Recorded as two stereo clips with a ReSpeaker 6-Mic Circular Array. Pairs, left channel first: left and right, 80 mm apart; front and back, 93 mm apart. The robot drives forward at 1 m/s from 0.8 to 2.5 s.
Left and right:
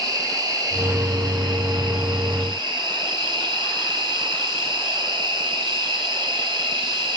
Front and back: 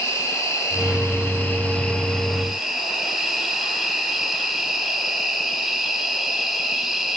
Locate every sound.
0.0 s an insect: 55° right, 3 m; by 7.2 s 95° right, 2.5 m